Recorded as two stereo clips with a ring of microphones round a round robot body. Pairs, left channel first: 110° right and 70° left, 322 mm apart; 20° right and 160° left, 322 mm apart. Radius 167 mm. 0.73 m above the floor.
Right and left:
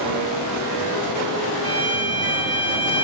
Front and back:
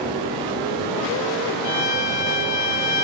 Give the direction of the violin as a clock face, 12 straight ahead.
1 o'clock.